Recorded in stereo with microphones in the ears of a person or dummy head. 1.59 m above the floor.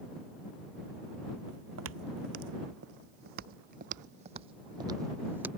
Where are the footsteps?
75° right (ahead or behind); by 5.5 s 10° right (ahead or behind).